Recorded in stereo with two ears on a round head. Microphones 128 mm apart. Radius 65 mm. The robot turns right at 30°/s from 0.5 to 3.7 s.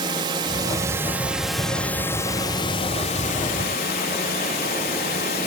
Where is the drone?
30° right; by 5.5 s 65° left.